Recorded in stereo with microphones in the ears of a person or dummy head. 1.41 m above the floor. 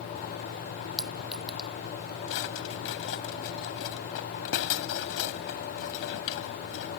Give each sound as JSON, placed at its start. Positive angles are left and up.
{"t": 1.0, "sound": "a clink", "side_deg": -5}
{"t": 2.3, "sound": "a drawer", "side_deg": 70}